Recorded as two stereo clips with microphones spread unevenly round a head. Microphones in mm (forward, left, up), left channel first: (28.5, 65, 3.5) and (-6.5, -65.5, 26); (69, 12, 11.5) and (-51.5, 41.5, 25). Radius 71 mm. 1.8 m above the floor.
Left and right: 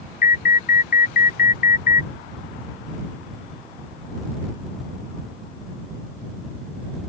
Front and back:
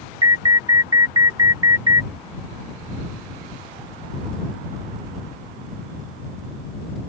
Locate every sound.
0.2 s an alarm: 110° left